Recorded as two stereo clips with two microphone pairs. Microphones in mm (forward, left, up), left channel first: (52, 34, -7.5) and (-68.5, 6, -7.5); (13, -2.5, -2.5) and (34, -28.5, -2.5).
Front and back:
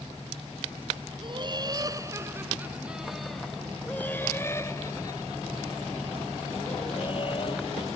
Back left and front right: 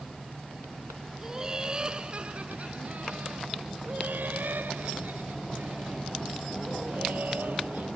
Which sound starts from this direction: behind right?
Laughter, at 1.2 s.